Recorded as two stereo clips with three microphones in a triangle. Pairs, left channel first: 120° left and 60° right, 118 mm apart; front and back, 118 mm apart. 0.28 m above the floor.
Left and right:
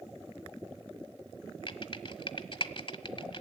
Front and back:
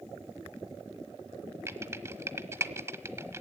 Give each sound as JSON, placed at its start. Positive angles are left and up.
{"t": 1.7, "sound": "typing on a keyboard", "azimuth_deg": 120, "distance_m": 1.2}